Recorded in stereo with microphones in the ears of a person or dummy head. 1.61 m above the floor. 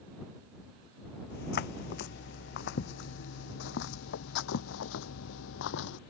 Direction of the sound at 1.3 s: 60° left (ahead or behind).